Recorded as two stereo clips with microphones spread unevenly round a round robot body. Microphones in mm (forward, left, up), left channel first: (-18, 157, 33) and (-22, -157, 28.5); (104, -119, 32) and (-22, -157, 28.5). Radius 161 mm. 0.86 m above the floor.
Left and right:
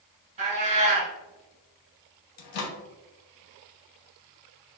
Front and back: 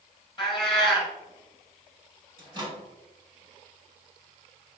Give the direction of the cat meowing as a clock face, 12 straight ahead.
1 o'clock.